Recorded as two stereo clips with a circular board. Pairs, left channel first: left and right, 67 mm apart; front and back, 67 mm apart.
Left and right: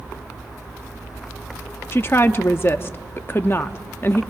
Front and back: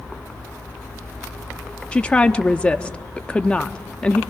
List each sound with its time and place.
1.9 s a woman speaking: 65° left, 0.6 m